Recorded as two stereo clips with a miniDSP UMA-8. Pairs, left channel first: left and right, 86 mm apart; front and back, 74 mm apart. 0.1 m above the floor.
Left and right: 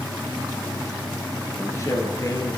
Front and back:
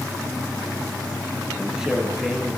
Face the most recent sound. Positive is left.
turn(degrees=105)